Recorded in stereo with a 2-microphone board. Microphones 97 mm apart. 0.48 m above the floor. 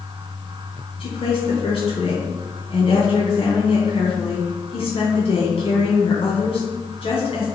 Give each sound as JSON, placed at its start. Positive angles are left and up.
{"t": 1.0, "sound": "a woman speaking", "side_deg": 75, "distance_m": 4.0}